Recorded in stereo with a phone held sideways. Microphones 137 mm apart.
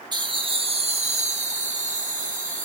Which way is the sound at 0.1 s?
35° right (ahead or behind).